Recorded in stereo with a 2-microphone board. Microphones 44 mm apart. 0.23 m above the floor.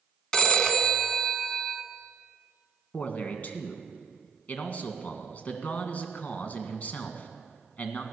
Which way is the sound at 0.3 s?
15° left (ahead or behind).